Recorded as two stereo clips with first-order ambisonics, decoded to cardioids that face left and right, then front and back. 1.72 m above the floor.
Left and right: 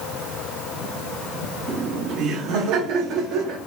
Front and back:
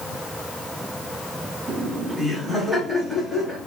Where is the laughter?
125° right, 0.6 m; by 3.6 s 75° right, 1.3 m.